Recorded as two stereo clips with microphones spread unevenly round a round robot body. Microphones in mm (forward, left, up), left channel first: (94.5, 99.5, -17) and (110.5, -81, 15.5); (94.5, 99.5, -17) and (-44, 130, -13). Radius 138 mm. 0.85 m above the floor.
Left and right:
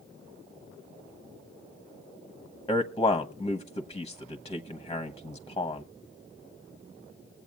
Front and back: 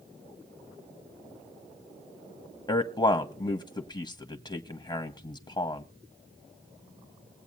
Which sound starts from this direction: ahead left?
A man speaking, at 2.7 s.